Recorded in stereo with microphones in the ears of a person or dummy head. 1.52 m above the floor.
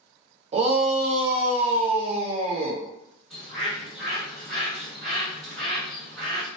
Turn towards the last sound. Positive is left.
turn(degrees=5)  # may be behind; listen again after turning